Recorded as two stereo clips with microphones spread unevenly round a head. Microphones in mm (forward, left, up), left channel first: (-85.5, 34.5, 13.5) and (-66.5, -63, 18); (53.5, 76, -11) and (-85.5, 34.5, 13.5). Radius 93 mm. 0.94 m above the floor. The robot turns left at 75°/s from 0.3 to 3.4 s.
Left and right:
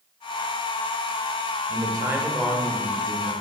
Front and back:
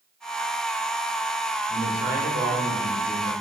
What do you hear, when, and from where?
1.7 s a man speaking: 115° right, 1.1 m; by 3.3 s 125° left, 1.1 m